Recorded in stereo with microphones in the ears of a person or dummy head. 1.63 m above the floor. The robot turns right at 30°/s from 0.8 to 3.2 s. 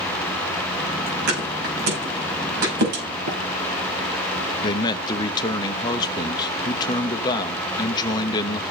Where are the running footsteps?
65° right (ahead or behind), 4.5 m.